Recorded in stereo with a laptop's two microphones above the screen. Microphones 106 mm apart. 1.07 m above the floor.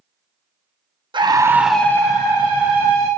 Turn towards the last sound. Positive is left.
turn(degrees=55)  # may be behind; listen again after turning